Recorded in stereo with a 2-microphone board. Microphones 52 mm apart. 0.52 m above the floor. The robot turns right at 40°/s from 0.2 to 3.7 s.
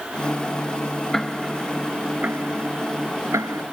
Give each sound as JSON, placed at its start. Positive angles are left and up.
{"t": 1.1, "sound": "ticking", "side_deg": 10}